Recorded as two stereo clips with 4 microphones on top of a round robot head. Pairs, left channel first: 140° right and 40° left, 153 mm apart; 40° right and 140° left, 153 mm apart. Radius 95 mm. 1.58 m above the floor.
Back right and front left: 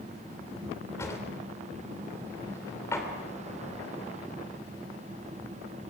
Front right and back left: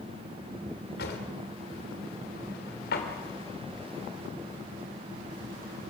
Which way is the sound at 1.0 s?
70° right.